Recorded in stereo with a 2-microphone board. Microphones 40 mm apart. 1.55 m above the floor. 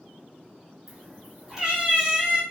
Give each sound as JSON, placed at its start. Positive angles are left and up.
{"t": 0.9, "sound": "a cat meowing", "side_deg": -10, "distance_m": 0.9}